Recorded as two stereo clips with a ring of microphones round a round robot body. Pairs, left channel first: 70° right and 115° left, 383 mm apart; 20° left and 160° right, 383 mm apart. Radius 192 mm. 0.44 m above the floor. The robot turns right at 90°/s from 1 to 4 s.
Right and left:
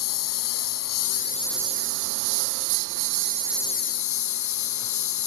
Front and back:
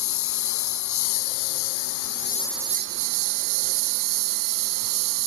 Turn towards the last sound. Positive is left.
turn(degrees=-115)